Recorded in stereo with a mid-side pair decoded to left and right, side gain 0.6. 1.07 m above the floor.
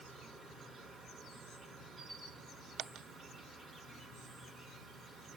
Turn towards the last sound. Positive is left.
turn(degrees=-30)